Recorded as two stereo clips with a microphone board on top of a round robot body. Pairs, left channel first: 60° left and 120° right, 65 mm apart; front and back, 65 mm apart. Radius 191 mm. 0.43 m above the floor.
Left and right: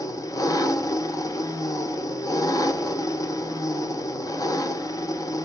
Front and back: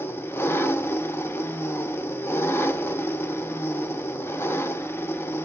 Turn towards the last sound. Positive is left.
turn(degrees=50)